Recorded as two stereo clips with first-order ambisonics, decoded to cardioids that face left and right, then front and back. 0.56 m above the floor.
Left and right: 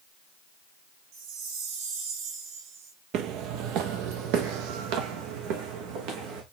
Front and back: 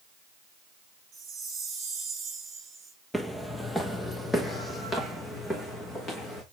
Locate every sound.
1.1 s a chime: 115° right, 3 m
3.1 s footsteps: 85° right, 0.8 m; by 6.4 s 75° right, 2.5 m